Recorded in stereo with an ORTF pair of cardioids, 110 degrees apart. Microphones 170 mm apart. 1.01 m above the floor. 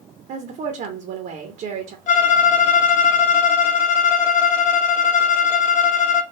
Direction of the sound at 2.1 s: 55° left.